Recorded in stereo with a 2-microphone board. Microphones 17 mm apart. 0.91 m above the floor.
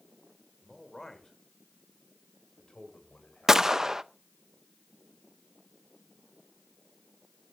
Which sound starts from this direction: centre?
A man speaking, at 0.6 s.